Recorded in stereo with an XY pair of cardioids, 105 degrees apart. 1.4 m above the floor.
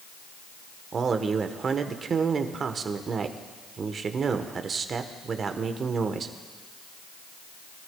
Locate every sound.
0.9 s a man speaking: 45° right, 1.1 m